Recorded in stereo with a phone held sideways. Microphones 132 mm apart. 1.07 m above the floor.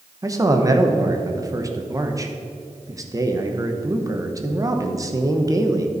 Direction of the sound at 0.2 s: 25° right (ahead or behind).